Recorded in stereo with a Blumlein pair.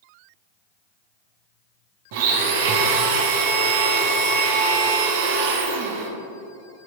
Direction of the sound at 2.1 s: 50° right.